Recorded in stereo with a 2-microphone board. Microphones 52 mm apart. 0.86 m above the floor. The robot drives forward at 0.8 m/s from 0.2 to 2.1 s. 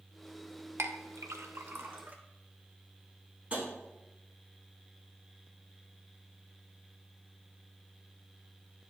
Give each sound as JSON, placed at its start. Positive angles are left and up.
{"t": 0.8, "sound": "a clink", "side_deg": -60, "distance_m": 0.6}
{"t": 3.5, "sound": "tapping", "side_deg": -25, "distance_m": 2.5}